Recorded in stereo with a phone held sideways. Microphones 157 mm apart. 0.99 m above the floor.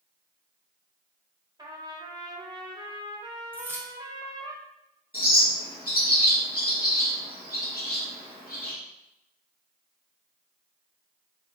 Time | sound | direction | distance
1.6 | a trumpet | 25° right (ahead or behind) | 0.8 m
3.5 | keys jangling | 15° right (ahead or behind) | 0.7 m
5.1 | a bird | 60° left (ahead or behind) | 1.5 m